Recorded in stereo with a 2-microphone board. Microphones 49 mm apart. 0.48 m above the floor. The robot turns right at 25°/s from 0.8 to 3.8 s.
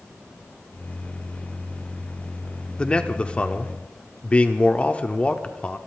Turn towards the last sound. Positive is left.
turn(degrees=25)  # may be behind; listen again after turning